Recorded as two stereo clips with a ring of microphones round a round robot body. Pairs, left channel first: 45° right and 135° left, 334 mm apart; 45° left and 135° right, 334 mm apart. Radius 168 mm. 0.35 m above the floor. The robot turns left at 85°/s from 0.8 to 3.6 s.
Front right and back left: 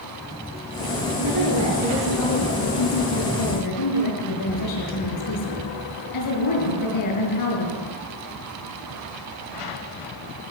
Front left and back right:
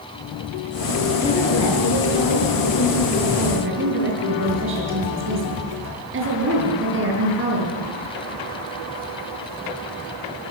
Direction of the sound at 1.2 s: 125° left.